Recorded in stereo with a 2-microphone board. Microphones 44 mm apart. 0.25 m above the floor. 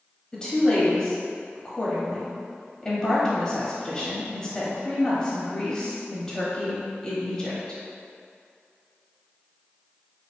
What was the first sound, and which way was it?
A woman speaking, 15° left (ahead or behind).